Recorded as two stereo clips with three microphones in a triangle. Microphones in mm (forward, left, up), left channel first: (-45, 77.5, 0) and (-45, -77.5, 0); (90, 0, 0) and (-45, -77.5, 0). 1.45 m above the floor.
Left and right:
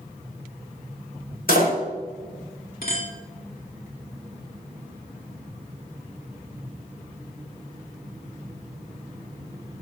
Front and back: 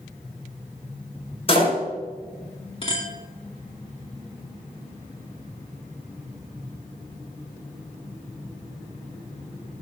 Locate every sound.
1.5 s a door slam: 80° left, 4 m
2.8 s a clink: 80° left, 2 m